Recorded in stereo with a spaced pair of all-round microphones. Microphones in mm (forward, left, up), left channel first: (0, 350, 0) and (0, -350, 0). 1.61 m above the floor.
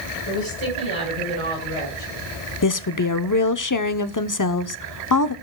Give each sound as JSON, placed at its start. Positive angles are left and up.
{"t": 0.3, "sound": "a woman speaking", "side_deg": -40, "distance_m": 6.0}
{"t": 2.6, "sound": "a woman speaking", "side_deg": 30, "distance_m": 0.8}